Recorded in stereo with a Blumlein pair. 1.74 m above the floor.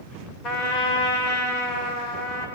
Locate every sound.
0.4 s a trumpet: 35° left, 2.5 m